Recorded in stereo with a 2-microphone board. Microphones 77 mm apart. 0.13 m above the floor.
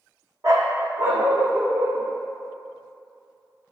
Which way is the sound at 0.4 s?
45° right (ahead or behind).